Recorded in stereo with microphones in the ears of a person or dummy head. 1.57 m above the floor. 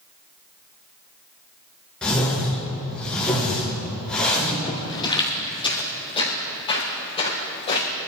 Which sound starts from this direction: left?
Footsteps, at 4.7 s.